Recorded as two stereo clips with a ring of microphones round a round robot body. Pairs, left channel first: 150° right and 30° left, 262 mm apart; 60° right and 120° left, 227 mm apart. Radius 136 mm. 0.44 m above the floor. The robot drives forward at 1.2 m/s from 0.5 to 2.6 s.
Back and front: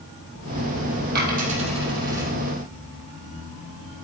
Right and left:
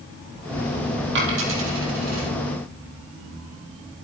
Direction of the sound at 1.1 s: 85° left.